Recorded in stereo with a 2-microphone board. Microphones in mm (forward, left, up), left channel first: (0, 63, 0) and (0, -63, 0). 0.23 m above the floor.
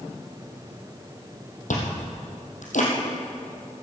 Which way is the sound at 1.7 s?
85° left.